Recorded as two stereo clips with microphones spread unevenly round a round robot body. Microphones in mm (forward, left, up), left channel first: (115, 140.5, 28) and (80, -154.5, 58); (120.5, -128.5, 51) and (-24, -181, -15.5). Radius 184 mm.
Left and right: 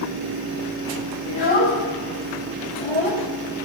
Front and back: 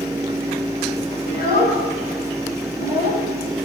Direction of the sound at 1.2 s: 30° left.